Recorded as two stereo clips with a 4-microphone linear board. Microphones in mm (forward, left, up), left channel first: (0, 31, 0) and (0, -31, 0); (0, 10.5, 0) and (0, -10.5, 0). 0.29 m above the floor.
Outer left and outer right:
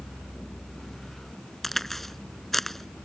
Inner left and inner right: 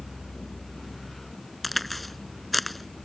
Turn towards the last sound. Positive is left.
turn(degrees=5)  # may be behind; listen again after turning